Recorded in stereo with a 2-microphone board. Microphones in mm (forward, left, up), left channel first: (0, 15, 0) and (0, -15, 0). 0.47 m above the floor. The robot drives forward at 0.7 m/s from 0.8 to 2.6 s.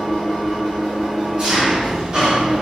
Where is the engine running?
20° right (ahead or behind), 1.9 m; by 2.6 s 50° right (ahead or behind), 0.8 m.